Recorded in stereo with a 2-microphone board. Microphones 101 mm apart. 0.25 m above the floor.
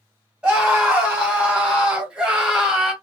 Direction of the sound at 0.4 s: 10° right (ahead or behind).